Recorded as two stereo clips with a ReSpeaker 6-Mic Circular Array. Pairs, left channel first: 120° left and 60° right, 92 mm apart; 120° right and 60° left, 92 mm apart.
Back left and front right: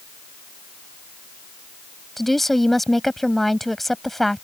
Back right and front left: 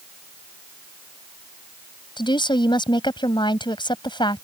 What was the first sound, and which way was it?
A woman speaking, 150° right.